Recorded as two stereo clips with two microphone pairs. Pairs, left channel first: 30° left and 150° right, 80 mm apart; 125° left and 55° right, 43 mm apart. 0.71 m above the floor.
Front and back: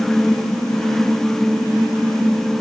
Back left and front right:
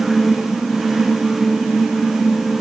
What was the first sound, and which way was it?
Only background noise.